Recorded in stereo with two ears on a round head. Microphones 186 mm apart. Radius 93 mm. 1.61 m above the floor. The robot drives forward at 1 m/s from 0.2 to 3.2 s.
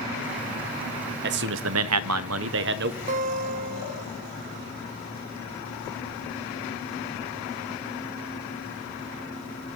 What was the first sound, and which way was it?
A man speaking, 55° right (ahead or behind).